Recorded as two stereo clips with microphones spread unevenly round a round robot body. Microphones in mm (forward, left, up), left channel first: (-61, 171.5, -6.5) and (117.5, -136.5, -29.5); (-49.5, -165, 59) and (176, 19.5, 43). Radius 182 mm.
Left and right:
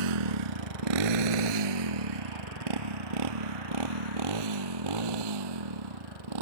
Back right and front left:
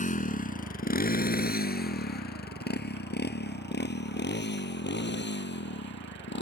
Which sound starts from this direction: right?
A motorcycle, at 0.0 s.